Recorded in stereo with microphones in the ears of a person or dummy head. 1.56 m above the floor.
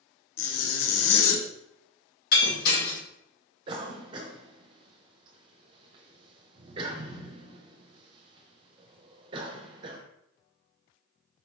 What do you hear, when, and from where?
0.4 s a zipper: 75° left (ahead or behind), 0.8 m
2.3 s breaking glass: 55° left (ahead or behind), 1.4 m
3.7 s a cough: 30° right (ahead or behind), 1.0 m